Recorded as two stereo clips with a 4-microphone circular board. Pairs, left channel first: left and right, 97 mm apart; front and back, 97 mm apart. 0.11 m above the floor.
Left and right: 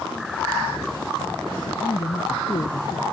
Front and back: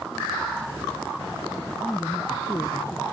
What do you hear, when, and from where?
1.7 s a man speaking: 85° left; by 3.0 s 55° left